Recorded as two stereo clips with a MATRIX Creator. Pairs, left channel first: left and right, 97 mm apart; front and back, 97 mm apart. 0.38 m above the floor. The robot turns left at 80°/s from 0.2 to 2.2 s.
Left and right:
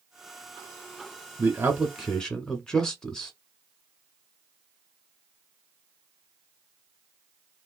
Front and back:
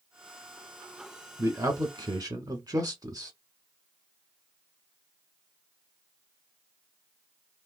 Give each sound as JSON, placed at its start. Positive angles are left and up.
{"t": 1.4, "sound": "a man speaking", "azimuth_deg": -125, "distance_m": 1.1}